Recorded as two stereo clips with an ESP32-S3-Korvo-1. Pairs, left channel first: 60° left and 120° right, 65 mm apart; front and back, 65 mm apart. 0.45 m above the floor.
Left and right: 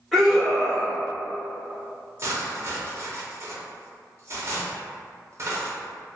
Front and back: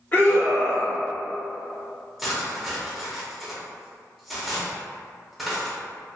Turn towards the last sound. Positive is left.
turn(degrees=-95)